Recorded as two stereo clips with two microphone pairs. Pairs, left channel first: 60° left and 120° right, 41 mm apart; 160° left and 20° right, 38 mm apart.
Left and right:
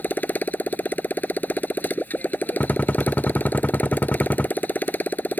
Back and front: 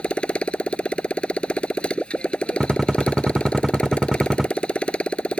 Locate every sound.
0.0 s a motorcycle: 100° left
2.6 s a gunshot: 50° left